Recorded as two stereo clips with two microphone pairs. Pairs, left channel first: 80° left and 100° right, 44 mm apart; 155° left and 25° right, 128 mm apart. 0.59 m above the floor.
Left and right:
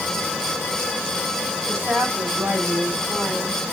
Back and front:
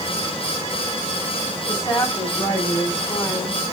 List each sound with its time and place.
1.7 s a woman speaking: 135° right, 6.5 m